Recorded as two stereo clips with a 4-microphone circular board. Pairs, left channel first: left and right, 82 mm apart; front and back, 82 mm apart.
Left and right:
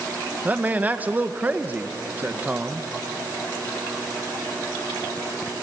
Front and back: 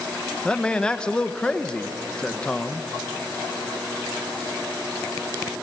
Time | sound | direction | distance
0.5 | a man speaking | 60° right | 0.9 m